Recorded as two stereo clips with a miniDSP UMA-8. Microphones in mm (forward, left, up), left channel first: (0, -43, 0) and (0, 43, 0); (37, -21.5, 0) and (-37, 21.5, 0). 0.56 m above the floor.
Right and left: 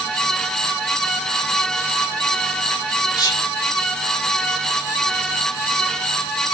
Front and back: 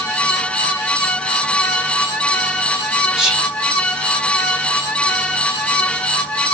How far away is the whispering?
About 1.8 m.